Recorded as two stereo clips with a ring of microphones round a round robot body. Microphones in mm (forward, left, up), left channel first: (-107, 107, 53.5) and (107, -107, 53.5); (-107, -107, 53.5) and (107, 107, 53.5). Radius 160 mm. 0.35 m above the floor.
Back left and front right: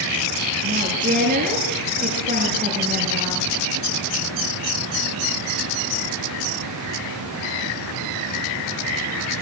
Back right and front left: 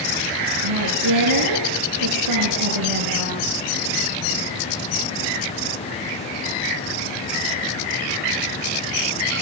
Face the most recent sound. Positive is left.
turn(degrees=20)